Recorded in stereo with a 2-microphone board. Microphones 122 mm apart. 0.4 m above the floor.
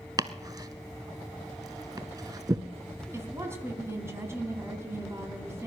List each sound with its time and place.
0.2 s chopping: 30° right (ahead or behind), 0.7 m
3.1 s a woman speaking: 20° right (ahead or behind), 3 m